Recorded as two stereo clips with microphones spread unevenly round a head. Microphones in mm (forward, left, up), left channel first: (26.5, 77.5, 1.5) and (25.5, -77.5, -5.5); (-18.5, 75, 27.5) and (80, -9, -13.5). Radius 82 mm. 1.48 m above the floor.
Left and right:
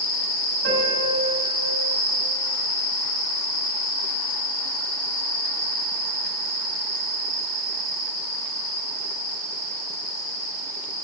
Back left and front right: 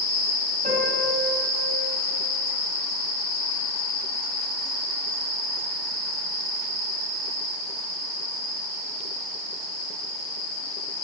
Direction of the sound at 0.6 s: 95° right.